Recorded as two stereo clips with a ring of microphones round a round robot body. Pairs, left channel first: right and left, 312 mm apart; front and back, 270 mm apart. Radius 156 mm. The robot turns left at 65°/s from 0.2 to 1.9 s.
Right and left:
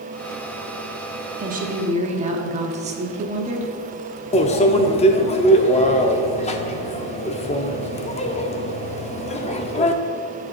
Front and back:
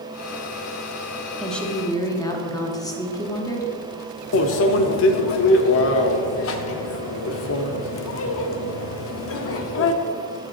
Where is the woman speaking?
90° left, 1.1 m; by 3.7 s 60° left, 1.1 m.